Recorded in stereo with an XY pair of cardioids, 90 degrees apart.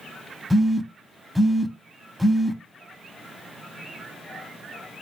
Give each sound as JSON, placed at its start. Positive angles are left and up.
{"t": 0.5, "sound": "a phone buzzing", "azimuth_deg": -5, "distance_m": 0.6}